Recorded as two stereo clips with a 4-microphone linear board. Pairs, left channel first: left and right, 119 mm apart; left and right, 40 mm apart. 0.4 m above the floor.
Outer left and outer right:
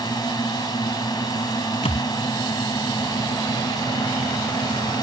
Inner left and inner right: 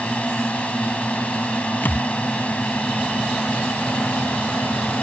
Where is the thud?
65° left (ahead or behind).